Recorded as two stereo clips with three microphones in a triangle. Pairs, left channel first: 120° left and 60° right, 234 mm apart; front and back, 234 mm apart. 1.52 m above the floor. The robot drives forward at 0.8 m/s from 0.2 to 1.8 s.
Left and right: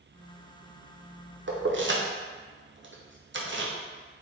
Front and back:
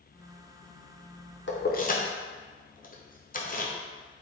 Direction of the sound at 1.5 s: 30° right.